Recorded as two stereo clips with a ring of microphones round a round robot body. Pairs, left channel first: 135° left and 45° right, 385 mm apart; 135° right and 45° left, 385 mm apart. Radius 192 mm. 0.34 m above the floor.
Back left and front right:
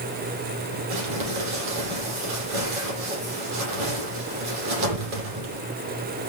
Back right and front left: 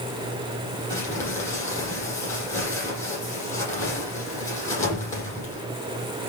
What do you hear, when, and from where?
0.9 s crumpling: 50° right, 9.5 m